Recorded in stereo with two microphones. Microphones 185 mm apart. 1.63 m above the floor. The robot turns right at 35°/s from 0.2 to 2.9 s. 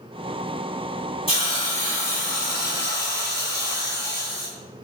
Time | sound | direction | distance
1.3 | a hiss | 30° left | 5 m